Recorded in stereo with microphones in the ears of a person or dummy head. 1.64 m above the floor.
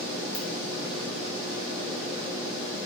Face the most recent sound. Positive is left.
turn(degrees=10)  # may be behind; listen again after turning